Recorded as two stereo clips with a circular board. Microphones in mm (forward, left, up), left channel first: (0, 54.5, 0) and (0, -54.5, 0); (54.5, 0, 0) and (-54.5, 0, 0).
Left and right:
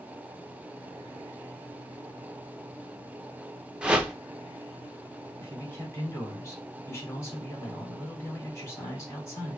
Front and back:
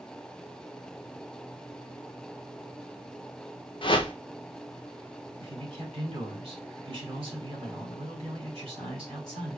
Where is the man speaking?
150° left, 3.5 m.